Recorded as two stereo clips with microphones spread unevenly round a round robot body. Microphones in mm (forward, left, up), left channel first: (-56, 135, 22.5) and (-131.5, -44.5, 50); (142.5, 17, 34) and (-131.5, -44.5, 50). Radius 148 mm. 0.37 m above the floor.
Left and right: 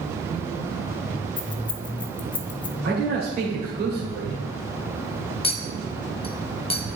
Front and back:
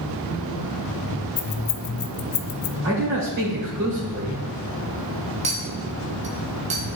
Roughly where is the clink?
Behind left.